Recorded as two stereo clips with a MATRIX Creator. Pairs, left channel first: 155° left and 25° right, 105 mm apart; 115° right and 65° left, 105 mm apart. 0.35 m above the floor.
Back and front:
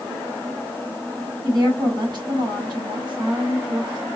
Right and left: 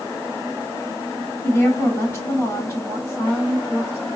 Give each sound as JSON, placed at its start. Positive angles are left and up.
{"t": 1.4, "sound": "a woman speaking", "azimuth_deg": -45, "distance_m": 2.5}